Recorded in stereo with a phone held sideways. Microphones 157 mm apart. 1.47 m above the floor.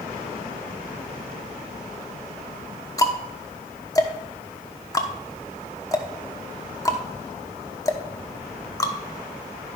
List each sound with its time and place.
3.0 s ticking: 20° left (ahead or behind), 1.0 m